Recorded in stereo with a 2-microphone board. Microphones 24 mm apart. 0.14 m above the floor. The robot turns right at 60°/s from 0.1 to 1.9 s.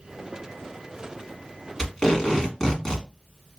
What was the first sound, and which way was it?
Tape being pulled, 20° left (ahead or behind).